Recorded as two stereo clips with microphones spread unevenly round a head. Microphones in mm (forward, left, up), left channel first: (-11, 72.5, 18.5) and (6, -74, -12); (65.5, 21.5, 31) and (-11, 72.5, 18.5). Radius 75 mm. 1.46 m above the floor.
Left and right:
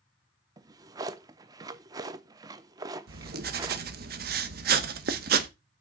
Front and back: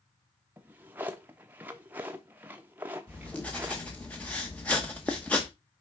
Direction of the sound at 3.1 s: 110° right.